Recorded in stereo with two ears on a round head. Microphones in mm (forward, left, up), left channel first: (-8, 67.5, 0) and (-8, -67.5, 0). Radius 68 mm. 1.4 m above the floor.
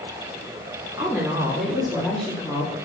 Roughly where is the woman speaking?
Centre.